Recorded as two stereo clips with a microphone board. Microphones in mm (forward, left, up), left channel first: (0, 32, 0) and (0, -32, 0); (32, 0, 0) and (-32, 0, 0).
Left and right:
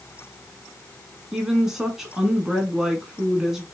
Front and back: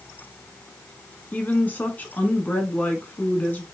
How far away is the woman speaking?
About 1.2 m.